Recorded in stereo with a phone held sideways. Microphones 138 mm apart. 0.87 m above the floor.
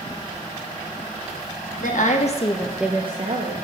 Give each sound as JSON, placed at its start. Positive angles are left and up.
{"t": 1.8, "sound": "a woman speaking", "side_deg": 65, "distance_m": 1.5}